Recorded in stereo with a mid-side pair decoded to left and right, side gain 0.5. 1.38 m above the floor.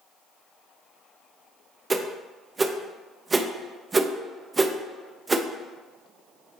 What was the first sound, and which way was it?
A whoosh, 25° right.